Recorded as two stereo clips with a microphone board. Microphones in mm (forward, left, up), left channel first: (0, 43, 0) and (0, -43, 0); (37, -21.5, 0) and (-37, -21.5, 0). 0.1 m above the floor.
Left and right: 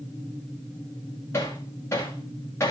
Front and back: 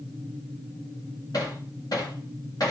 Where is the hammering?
30° left, 5 m.